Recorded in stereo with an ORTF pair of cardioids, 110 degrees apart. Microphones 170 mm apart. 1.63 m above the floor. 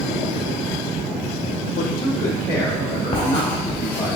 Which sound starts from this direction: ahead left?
Writing, at 3.1 s.